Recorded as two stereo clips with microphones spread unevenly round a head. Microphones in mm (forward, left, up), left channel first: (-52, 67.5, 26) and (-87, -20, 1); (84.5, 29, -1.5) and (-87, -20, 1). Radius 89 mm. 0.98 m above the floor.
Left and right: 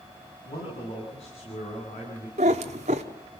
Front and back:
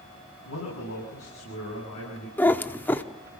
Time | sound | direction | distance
0.5 | a man speaking | 15° left | 8.5 m
2.4 | a cat meowing | 65° right | 1.0 m